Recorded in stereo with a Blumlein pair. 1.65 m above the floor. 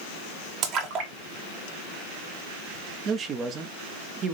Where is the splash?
35° right, 1.4 m.